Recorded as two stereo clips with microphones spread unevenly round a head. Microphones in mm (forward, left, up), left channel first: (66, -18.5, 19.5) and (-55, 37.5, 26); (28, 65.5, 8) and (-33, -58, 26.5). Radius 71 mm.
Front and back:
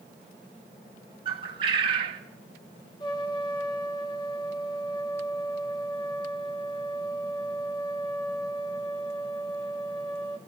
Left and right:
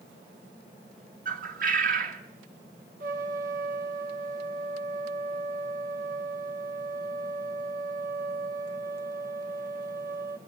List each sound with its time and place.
1.2 s a bird: 150° right, 2.5 m
3.0 s a trumpet: 85° right, 2 m